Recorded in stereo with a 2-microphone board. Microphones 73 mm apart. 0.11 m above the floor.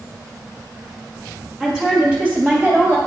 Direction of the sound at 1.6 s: 10° right (ahead or behind).